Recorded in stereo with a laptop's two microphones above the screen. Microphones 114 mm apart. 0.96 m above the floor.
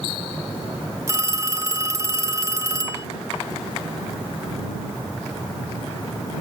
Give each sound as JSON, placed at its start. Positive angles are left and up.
{"t": 1.1, "sound": "a phone ringing", "side_deg": -25}